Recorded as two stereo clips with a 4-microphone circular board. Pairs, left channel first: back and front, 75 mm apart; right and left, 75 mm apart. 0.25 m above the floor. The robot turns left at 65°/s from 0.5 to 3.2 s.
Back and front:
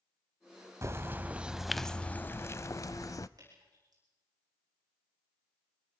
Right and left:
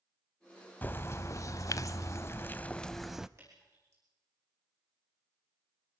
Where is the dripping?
40° left, 10 m.